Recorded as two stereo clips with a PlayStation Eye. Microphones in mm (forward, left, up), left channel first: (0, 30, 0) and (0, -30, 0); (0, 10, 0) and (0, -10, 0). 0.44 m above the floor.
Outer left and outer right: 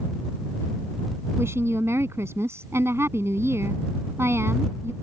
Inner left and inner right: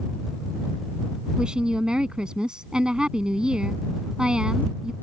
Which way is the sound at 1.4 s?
50° right (ahead or behind).